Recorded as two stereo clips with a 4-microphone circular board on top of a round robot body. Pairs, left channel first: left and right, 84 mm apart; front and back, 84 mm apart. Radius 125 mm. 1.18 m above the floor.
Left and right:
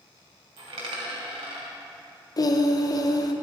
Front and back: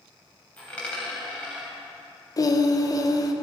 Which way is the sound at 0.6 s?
75° right.